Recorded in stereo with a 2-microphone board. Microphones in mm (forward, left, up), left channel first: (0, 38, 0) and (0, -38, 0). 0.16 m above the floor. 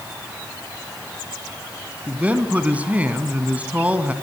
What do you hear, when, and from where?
2.1 s a man speaking: 20° right (ahead or behind), 1.7 m